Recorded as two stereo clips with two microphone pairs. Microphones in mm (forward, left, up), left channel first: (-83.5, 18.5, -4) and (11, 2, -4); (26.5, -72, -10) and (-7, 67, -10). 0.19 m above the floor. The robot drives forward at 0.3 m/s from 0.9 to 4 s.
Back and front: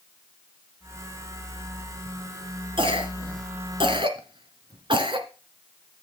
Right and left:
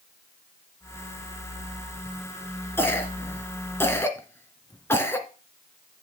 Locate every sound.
2.8 s a cough: 5° right, 2 m